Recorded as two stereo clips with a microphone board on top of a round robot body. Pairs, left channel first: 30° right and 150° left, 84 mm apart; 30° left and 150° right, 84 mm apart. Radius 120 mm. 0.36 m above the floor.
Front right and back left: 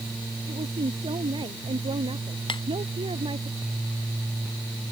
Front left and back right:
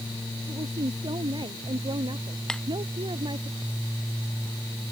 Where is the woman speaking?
175° left.